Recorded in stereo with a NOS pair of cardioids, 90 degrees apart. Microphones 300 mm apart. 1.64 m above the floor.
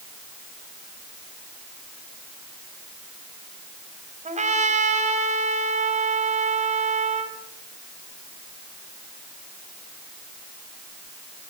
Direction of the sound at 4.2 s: 25° right.